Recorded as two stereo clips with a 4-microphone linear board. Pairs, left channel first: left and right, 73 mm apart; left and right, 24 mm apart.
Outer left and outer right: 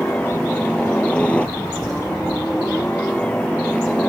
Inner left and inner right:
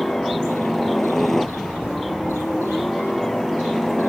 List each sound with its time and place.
0.0 s a helicopter: 15° left (ahead or behind)